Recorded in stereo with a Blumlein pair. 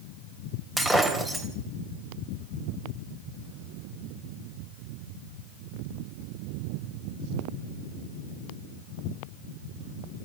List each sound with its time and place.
0.8 s breaking glass: 10° right, 3.5 m